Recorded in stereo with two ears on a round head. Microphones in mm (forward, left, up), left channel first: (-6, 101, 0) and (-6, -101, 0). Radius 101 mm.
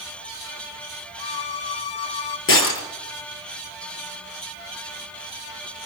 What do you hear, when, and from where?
1.2 s a violin: 50° left (ahead or behind), 1.6 m
2.5 s breaking glass: 60° left (ahead or behind), 5 m